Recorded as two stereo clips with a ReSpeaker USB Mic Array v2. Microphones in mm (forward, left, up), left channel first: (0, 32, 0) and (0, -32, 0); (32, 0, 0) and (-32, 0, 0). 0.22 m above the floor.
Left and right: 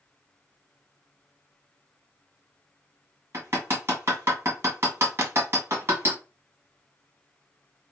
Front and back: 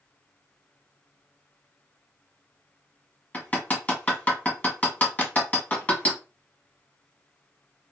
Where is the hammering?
55° right, 1.4 m.